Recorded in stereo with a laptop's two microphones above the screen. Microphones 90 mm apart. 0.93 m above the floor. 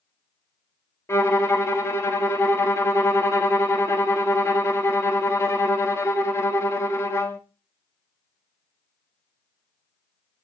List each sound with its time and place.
1.1 s a violin: 30° left (ahead or behind), 0.6 m